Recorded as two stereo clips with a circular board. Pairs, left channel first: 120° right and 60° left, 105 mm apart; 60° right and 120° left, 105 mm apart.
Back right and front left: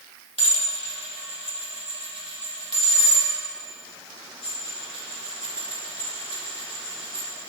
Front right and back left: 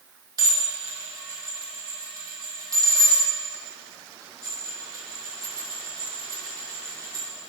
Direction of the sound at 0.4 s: 70° left.